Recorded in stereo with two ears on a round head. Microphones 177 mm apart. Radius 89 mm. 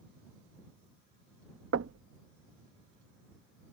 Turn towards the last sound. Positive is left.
turn(degrees=-65)  # may be behind; listen again after turning